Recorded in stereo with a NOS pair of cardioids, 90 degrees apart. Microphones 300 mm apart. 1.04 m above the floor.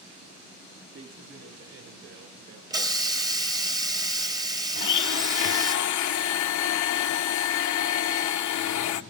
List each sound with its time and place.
0.9 s a man speaking: 45° right, 2 m; by 2.6 s 70° right, 3.5 m
2.7 s a hiss: 10° right, 1.0 m
4.8 s a blender: 70° left, 0.8 m